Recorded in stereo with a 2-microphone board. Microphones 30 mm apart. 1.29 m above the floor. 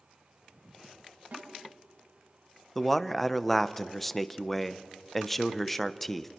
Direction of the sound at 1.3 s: 75° right (ahead or behind).